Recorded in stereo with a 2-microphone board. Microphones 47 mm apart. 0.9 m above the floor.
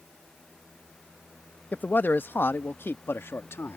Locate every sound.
1.7 s a man speaking: 40° left (ahead or behind); by 3.8 s 65° left (ahead or behind)